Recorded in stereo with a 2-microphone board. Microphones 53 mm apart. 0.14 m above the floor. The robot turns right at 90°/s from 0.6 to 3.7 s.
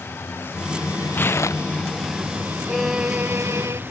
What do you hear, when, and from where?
0.0 s a vehicle: 45° left; by 3.9 s 40° right
1.1 s tearing paper: 30° left (ahead or behind); by 2.0 s 70° left (ahead or behind)
2.7 s a violin: 170° left; by 3.8 s 100° right